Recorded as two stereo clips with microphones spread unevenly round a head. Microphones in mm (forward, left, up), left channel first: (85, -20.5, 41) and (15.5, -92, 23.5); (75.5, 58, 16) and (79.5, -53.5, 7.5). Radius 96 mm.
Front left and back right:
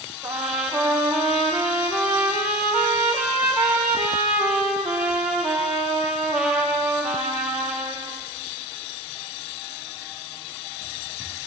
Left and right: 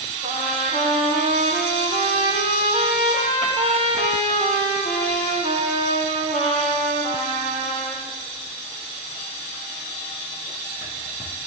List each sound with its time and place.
0.2 s a trumpet: 135° left, 9 m